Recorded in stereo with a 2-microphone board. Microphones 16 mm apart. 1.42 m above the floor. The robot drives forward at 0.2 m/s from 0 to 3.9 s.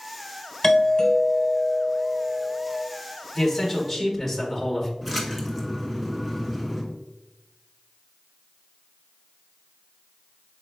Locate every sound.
0.6 s a doorbell: 30° left (ahead or behind), 1.4 m; by 2.8 s 40° left (ahead or behind), 1.1 m
3.4 s a man speaking: 15° left (ahead or behind), 1.4 m; by 4.9 s 10° left (ahead or behind), 1.5 m
5.0 s a splash: 15° right (ahead or behind), 1.3 m